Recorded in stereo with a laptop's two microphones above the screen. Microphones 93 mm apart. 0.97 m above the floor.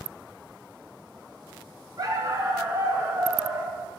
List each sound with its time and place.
2.0 s a dog barking: 40° right (ahead or behind), 2.5 m; by 3.8 s 25° right (ahead or behind), 3.5 m